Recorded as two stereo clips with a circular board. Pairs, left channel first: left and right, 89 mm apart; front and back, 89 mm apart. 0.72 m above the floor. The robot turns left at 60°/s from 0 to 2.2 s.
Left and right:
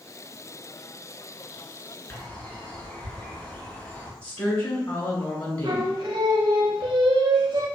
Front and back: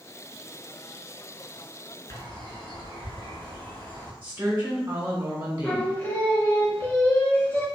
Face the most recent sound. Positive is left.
turn(degrees=-65)